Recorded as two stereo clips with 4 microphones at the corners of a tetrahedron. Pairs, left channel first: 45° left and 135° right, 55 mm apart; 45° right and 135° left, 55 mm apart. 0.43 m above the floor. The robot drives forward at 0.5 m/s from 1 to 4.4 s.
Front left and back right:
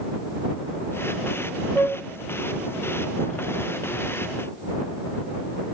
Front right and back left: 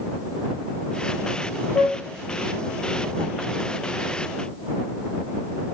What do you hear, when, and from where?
1.8 s a flute: 40° right, 3 m